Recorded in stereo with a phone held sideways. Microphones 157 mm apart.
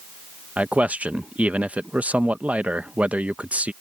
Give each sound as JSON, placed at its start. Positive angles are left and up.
{"t": 0.6, "sound": "a man speaking", "side_deg": -10}